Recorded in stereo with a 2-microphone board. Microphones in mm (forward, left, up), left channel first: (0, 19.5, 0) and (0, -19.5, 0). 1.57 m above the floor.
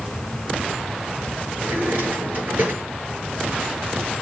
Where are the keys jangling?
I don't hear keys jangling.